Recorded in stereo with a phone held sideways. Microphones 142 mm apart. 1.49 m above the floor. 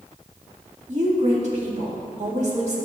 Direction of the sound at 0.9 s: 55° right (ahead or behind).